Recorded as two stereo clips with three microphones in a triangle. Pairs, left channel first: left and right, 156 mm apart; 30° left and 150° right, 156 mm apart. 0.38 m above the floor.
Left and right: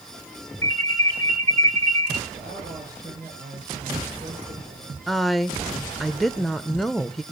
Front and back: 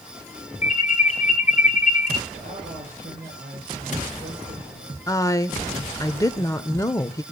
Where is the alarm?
25° left, 2.5 m.